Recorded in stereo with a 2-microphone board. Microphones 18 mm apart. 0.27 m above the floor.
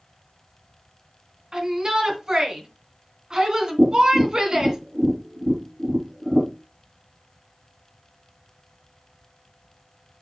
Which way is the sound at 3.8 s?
75° right (ahead or behind).